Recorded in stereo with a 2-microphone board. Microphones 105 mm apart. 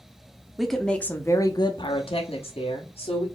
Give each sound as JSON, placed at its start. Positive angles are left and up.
{"t": 0.6, "sound": "a woman speaking", "side_deg": 0, "distance_m": 0.9}